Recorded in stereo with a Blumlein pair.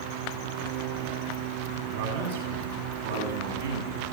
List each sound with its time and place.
1.8 s a man speaking: 55° right, 7 m; by 4.0 s 65° right, 8 m